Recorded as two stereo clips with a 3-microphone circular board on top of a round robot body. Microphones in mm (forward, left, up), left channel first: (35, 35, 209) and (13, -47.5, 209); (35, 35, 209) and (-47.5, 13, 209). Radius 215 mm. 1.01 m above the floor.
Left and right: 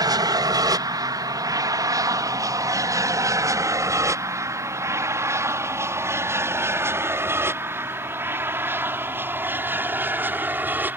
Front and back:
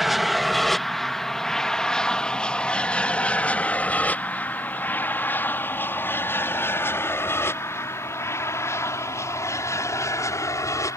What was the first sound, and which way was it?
An aircraft, 80° right.